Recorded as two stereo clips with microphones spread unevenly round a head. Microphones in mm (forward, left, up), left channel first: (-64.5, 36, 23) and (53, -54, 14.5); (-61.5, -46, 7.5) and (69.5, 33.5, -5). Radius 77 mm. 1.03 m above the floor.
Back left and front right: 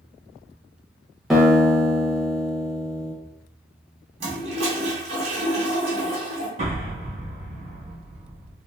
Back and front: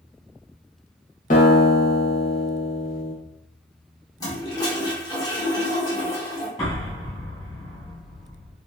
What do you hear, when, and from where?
1.3 s a guitar: 130° right, 1.2 m
4.2 s a toilet flushing: 85° right, 1.2 m
6.6 s an explosion: 80° right, 1.9 m